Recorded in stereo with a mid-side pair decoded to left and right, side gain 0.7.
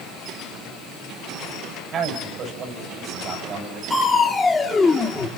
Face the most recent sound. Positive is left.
turn(degrees=15)